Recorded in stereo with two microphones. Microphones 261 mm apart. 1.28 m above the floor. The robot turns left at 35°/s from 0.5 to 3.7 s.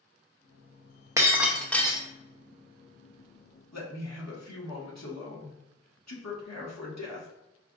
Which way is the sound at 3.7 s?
80° left.